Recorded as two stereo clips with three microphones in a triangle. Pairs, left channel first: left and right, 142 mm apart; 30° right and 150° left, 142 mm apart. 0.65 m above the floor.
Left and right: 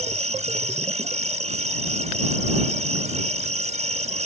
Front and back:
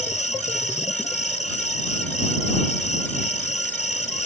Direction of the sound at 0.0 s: 60° right.